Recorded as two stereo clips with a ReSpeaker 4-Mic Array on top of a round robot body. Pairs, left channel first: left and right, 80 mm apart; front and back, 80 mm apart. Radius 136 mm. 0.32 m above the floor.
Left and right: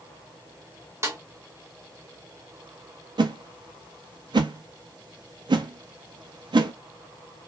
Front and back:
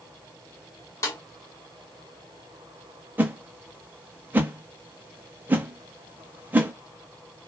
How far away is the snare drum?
About 1.3 m.